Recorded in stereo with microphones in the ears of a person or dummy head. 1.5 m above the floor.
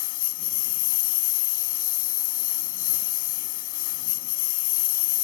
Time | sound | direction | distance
0.0 | a lawn mower | 45° left (ahead or behind) | ?